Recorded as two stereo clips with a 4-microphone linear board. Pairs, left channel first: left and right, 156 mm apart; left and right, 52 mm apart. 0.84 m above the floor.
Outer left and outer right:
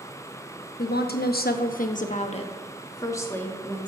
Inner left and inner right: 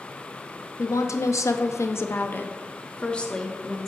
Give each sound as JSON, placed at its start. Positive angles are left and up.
{"t": 0.8, "sound": "a woman speaking", "side_deg": 70, "distance_m": 1.0}